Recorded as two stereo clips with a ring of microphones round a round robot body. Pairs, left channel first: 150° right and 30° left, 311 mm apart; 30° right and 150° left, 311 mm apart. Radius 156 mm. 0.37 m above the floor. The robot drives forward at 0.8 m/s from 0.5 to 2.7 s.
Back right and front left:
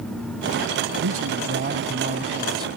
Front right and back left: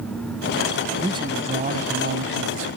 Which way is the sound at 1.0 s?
75° left.